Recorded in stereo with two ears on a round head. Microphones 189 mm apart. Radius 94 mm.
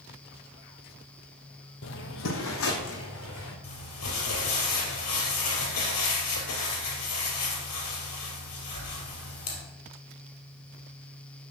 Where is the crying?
I don't hear crying.